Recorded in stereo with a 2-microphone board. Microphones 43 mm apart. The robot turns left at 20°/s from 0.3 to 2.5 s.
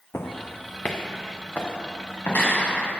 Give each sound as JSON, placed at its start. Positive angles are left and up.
{"t": 0.1, "sound": "footsteps", "side_deg": 75, "distance_m": 1.0}